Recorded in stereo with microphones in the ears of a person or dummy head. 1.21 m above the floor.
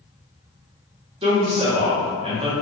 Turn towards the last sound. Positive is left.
turn(degrees=-30)  # may be behind; listen again after turning